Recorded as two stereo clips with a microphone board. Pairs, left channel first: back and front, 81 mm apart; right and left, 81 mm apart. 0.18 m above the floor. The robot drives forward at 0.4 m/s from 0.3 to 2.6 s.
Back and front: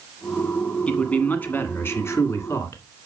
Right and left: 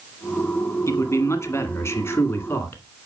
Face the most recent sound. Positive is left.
turn(degrees=-140)